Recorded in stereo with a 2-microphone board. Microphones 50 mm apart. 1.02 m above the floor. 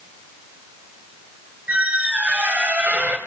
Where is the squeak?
30° right (ahead or behind), 2 m.